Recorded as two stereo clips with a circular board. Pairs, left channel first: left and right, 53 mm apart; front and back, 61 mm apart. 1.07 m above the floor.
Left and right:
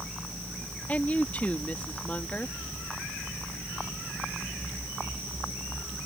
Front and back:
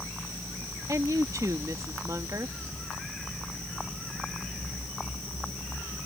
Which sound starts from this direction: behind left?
A woman speaking, at 0.9 s.